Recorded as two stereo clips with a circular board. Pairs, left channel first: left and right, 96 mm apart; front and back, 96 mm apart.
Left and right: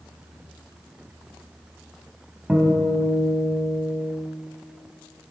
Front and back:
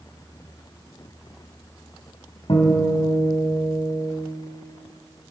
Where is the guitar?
10° right, 3 m.